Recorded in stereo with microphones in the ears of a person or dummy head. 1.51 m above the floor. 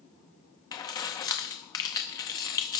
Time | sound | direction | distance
0.7 | keys jangling | 20° left (ahead or behind) | 0.6 m